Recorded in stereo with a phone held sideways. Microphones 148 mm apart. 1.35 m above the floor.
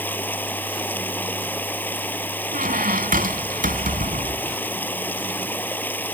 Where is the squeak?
70° right (ahead or behind).